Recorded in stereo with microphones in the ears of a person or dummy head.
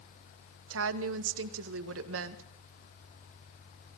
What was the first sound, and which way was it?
A woman speaking, 80° right.